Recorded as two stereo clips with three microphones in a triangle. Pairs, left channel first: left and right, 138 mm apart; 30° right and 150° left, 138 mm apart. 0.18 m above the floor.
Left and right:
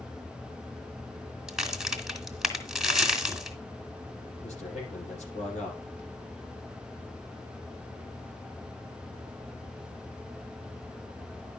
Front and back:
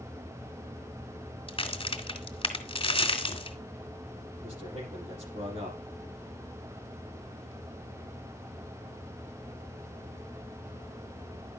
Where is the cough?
No cough in this recording.